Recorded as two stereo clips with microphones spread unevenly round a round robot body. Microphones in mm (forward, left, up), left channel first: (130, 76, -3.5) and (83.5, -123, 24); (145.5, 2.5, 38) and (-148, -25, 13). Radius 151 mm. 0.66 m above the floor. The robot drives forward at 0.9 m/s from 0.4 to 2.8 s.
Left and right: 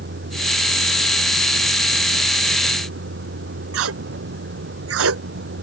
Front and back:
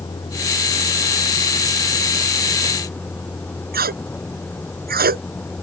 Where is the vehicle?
75° right; by 5.6 s 80° right.